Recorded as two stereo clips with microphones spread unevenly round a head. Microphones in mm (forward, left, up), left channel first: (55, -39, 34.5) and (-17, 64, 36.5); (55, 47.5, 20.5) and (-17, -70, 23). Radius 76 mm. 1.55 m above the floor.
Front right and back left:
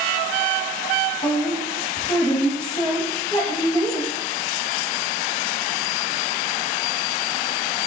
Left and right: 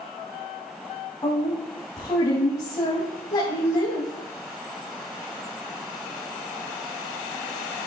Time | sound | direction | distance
1.2 | a woman speaking | 5° right | 2.5 m